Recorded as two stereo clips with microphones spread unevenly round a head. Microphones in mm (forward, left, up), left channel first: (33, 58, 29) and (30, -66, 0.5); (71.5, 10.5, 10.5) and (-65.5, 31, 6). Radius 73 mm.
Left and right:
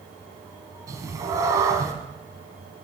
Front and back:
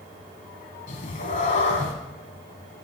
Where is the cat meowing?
20° right, 1.2 m.